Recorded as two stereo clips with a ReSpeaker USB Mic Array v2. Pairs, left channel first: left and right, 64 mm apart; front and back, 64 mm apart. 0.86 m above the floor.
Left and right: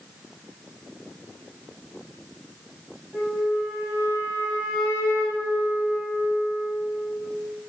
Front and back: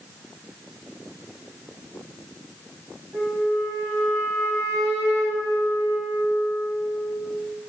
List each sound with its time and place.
3.1 s a flute: 155° right, 2.0 m